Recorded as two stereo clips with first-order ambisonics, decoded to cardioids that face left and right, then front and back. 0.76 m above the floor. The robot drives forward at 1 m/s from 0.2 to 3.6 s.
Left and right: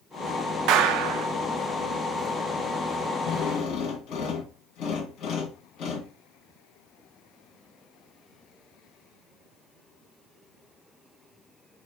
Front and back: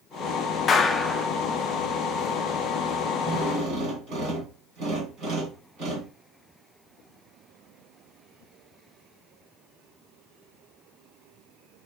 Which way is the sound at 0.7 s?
60° right.